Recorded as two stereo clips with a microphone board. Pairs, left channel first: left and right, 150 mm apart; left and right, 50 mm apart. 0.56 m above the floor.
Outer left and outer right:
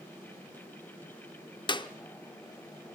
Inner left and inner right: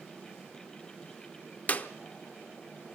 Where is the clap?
30° left (ahead or behind), 0.8 m.